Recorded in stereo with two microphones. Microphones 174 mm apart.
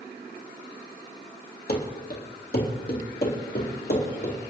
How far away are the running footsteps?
About 3 m.